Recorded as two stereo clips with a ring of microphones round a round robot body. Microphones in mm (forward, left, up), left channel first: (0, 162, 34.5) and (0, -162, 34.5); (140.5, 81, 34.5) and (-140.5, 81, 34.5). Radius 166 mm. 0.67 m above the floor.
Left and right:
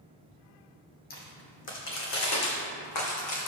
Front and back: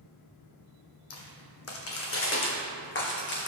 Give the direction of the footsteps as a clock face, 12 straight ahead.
11 o'clock.